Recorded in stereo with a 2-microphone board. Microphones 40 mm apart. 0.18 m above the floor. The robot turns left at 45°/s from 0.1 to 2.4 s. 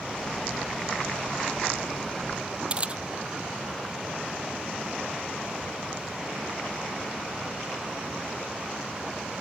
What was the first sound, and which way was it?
A camera shutter, 25° right (ahead or behind).